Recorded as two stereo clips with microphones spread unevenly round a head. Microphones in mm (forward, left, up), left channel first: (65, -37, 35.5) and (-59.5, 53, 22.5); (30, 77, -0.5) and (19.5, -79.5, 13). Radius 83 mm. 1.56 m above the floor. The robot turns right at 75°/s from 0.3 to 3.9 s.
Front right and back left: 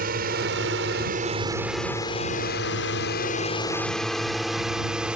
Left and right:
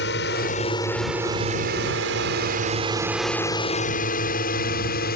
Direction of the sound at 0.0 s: 115° left.